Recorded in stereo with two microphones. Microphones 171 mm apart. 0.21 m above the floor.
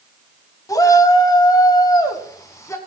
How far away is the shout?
About 1.1 m.